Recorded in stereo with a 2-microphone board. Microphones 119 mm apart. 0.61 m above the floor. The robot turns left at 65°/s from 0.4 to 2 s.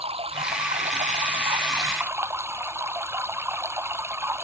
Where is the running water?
55° right; by 4.4 s 160° right.